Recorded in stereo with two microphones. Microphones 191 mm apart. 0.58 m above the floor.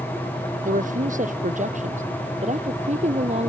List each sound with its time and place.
0.7 s a woman speaking: 45° right (ahead or behind); by 3.5 s 35° right (ahead or behind)